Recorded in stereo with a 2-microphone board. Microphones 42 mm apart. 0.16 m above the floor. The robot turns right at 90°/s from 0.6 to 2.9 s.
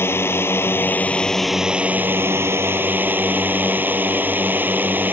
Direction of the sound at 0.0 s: 100° left.